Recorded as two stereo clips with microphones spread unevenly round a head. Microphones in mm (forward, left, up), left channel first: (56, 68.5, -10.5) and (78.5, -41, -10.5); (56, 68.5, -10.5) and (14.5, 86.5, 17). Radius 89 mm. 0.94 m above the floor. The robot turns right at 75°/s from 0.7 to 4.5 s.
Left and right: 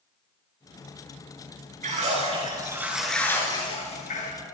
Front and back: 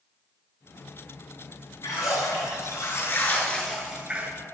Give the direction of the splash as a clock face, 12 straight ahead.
3 o'clock.